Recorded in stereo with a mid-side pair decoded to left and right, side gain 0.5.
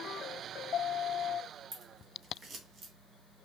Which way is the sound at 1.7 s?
45° right.